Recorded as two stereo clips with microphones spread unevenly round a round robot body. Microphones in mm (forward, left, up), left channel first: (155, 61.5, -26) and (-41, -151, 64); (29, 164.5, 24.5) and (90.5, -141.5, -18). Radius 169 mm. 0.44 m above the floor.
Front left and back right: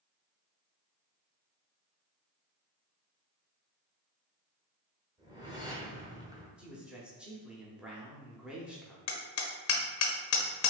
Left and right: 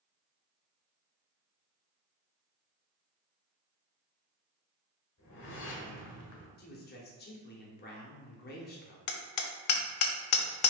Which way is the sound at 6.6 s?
95° left.